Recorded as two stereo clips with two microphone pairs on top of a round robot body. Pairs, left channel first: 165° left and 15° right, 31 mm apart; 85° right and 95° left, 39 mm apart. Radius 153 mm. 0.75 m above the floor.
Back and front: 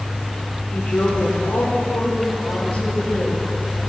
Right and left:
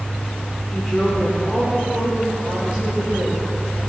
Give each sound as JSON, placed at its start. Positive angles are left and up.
{"t": 0.7, "sound": "a woman speaking", "azimuth_deg": -170, "distance_m": 3.0}